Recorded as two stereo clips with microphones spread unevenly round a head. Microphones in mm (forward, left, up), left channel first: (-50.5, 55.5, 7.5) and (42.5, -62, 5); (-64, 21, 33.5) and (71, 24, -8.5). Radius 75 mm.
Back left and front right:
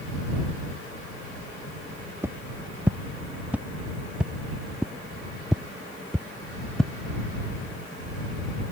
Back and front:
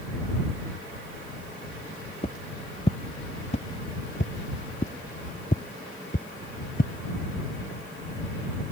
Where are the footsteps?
125° right; by 6.9 s 145° right.